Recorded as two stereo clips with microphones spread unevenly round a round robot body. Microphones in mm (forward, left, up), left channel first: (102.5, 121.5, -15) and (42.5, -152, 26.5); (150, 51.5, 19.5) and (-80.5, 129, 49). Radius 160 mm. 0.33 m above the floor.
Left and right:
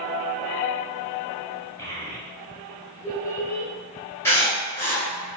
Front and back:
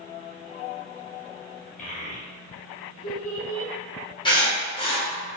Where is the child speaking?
10° left, 1.3 m.